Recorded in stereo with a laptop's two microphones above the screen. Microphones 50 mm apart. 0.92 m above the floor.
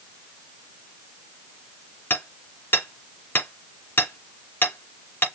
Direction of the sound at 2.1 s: 45° left (ahead or behind).